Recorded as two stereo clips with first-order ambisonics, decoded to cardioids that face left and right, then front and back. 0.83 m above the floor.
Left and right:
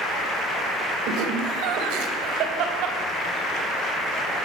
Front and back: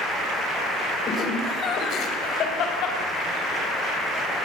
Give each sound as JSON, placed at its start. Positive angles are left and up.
{"t": 1.1, "sound": "laughter", "azimuth_deg": -65, "distance_m": 3.5}